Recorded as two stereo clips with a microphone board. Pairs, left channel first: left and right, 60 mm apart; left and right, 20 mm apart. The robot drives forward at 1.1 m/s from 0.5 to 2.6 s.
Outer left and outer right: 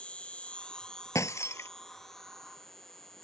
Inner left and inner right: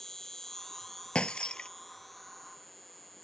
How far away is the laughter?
I don't hear laughter.